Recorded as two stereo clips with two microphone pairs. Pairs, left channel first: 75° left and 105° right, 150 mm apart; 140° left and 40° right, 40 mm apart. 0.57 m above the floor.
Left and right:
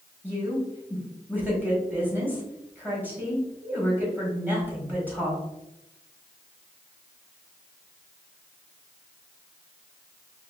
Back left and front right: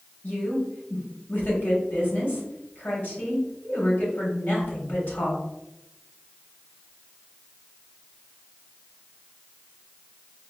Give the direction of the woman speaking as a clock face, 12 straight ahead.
6 o'clock.